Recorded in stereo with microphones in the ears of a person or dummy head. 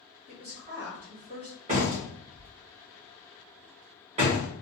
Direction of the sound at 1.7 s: 35° right (ahead or behind).